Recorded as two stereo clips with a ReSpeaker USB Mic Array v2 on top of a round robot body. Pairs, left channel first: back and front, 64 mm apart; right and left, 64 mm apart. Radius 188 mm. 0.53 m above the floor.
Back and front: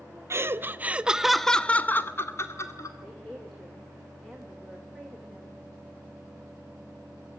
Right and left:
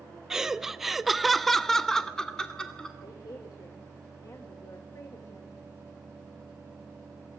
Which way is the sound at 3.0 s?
100° right.